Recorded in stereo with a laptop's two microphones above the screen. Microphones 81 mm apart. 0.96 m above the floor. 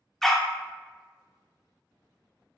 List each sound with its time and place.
0.2 s a dog barking: 5° left (ahead or behind), 0.6 m